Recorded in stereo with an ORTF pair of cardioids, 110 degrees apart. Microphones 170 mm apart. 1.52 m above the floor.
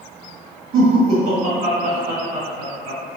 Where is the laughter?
55° right, 1.7 m.